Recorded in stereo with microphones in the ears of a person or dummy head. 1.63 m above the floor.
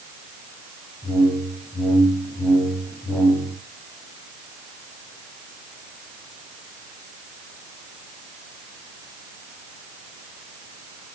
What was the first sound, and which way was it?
A whoosh, 5° right (ahead or behind).